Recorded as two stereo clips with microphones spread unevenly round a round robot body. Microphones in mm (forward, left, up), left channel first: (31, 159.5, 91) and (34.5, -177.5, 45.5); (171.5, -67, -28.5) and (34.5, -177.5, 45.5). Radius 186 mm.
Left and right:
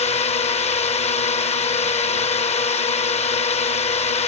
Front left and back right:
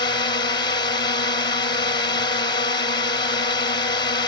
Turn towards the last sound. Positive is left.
turn(degrees=20)